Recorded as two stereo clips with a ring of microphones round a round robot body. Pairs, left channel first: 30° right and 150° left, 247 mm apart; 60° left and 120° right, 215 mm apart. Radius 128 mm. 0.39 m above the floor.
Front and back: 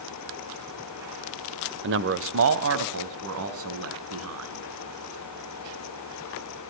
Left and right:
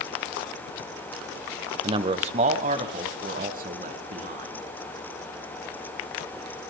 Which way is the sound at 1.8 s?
175° left.